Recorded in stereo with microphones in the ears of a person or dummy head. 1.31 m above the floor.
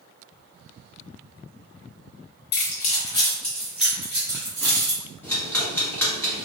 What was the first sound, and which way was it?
Keys jangling, 60° left (ahead or behind).